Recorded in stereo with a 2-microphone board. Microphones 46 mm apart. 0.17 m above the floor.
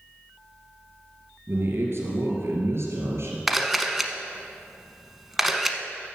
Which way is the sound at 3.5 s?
Centre (ahead or behind).